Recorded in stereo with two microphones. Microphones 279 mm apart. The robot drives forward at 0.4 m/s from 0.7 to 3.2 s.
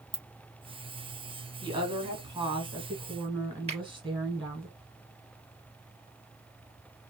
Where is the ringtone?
15° left (ahead or behind), 0.9 m.